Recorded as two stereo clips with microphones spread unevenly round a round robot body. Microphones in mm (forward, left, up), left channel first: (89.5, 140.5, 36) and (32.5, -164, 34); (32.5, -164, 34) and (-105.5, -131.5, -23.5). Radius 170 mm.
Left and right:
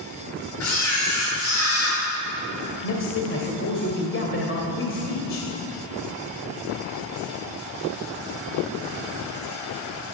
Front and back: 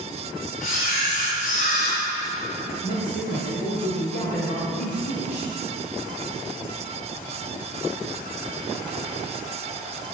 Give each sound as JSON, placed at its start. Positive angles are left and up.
{"t": 0.6, "sound": "a camera shutter", "azimuth_deg": 35, "distance_m": 7.0}
{"t": 2.8, "sound": "a man speaking", "azimuth_deg": 35, "distance_m": 2.5}